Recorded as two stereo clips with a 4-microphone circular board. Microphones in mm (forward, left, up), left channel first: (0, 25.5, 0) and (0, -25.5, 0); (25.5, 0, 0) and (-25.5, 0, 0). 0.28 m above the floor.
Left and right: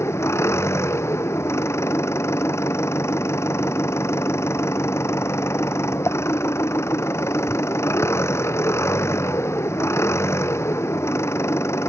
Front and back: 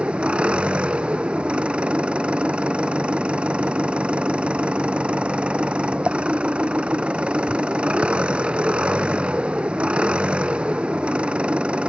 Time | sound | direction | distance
0.0 | an engine running | 110° left | ?